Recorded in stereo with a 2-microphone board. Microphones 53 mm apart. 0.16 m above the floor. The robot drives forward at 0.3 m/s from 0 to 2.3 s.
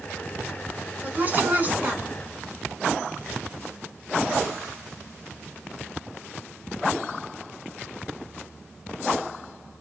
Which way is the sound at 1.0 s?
35° right (ahead or behind).